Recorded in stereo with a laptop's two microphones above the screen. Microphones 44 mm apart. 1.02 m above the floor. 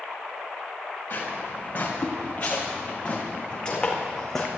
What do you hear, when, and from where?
1.1 s footsteps: 45° left (ahead or behind), 6 m; by 4.5 s 5° left (ahead or behind), 3.5 m